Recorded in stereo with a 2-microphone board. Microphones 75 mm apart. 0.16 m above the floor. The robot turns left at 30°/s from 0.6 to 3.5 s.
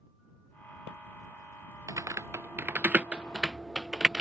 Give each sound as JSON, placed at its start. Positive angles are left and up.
{"t": 1.9, "sound": "typing on a keyboard", "side_deg": -50}